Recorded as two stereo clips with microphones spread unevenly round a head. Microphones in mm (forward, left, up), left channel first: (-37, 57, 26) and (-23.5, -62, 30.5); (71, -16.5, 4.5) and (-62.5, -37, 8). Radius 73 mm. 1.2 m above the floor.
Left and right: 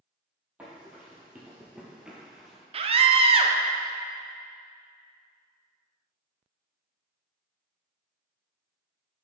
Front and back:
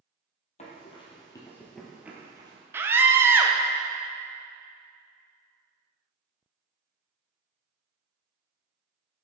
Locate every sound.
0.6 s running footsteps: 5° right, 1.7 m; by 2.6 s 165° right, 1.4 m
2.7 s a scream: 100° right, 0.7 m